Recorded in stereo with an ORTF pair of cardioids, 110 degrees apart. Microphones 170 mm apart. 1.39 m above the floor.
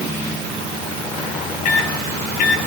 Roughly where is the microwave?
Ahead left.